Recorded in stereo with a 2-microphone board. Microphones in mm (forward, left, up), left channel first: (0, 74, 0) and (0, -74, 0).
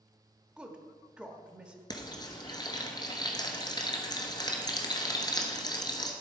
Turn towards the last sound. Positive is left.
turn(degrees=30)  # may be behind; listen again after turning